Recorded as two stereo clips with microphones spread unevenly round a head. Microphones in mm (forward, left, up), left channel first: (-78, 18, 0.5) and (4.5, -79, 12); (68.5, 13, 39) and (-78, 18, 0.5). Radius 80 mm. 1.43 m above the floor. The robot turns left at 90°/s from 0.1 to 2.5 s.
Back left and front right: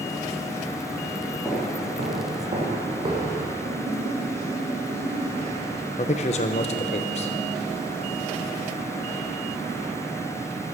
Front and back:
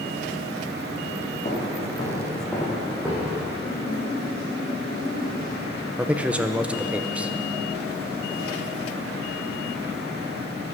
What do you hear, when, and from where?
1.4 s footsteps: 30° left, 3.5 m; by 3.5 s 105° right, 3.5 m
3.6 s a splash: 80° right, 4.5 m
6.0 s a man speaking: 85° left, 0.5 m